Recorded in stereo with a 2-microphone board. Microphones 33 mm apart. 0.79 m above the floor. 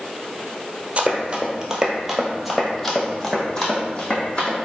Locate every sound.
1.0 s running footsteps: 35° right (ahead or behind), 0.9 m; by 4.5 s 30° left (ahead or behind), 1.7 m